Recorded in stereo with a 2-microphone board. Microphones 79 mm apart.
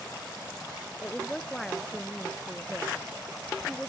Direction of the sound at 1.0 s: 5° left (ahead or behind).